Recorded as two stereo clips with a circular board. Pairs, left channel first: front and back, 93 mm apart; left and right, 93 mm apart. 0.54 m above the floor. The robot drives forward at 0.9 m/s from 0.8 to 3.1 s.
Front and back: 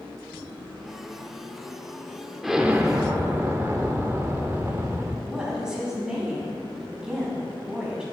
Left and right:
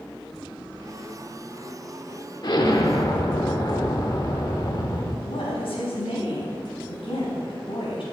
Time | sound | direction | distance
2.4 | an explosion | 90° left | 1.2 m
5.2 | a woman speaking | 100° left | 4 m